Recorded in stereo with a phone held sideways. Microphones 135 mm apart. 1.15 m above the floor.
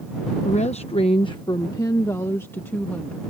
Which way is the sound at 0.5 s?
60° left (ahead or behind).